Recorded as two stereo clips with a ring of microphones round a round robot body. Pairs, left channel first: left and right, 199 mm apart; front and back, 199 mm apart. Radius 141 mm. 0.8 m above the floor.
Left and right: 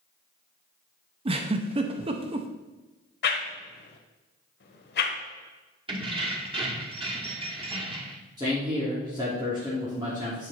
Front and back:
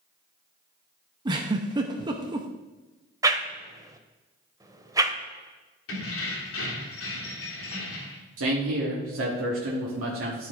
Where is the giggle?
125° right, 0.5 m.